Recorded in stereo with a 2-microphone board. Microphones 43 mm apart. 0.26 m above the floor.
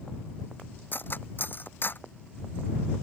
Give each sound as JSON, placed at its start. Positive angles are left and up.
{"t": 0.9, "sound": "cutlery clinking", "side_deg": 45}